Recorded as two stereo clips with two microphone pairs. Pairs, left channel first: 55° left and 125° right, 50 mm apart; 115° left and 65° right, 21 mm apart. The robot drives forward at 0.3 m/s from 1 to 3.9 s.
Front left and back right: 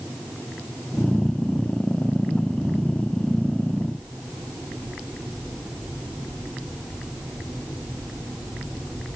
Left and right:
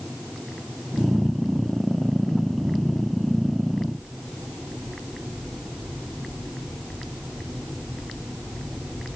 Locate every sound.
Only background noise.